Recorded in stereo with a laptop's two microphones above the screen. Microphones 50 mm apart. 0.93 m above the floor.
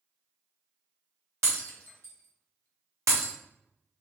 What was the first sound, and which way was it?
Breaking glass, 75° right (ahead or behind).